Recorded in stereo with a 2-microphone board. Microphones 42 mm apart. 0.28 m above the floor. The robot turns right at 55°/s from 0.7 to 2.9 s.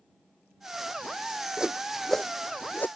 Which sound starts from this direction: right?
A whoosh, at 1.6 s.